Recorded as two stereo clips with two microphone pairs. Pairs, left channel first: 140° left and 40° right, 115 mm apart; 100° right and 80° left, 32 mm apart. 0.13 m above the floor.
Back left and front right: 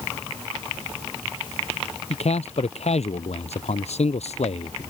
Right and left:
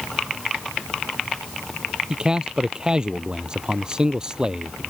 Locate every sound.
2.1 s a man speaking: 150° left